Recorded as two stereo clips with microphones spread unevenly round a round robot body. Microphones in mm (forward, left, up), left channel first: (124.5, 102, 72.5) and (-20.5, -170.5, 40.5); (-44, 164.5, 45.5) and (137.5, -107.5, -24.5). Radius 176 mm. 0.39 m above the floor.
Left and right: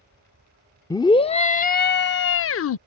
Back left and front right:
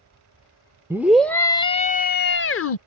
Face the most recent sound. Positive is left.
turn(degrees=85)